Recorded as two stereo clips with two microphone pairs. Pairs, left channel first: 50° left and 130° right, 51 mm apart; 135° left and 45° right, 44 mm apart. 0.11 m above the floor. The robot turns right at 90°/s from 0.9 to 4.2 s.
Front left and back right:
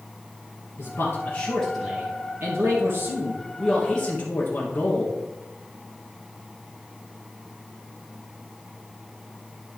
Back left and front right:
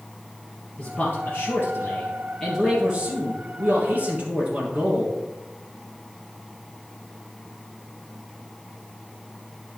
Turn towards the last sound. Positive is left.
turn(degrees=0)